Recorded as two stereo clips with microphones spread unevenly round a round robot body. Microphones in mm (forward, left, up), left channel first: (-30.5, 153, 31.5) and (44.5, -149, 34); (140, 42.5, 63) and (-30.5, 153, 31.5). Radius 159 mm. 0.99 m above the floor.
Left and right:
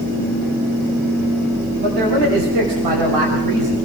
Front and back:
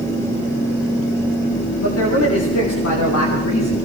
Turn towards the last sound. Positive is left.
turn(degrees=-45)